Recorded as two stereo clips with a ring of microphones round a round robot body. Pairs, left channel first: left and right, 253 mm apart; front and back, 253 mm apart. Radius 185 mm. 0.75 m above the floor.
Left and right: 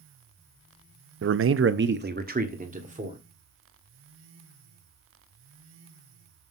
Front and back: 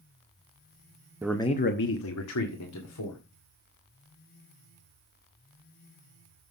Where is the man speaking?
100° right, 0.6 m; by 3.2 s 25° right, 2.5 m.